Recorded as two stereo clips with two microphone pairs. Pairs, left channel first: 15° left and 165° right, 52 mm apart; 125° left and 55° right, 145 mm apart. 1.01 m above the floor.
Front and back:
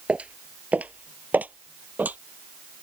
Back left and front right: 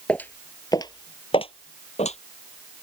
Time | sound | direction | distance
0.1 | footsteps | 170° right | ?